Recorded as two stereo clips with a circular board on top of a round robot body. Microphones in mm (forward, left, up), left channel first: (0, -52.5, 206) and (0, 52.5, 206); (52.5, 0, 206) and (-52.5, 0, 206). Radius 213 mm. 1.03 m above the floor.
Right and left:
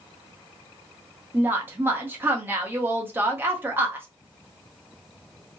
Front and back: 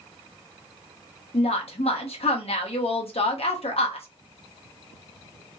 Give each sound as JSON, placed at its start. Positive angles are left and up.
{"t": 1.3, "sound": "a woman speaking", "azimuth_deg": 20, "distance_m": 0.8}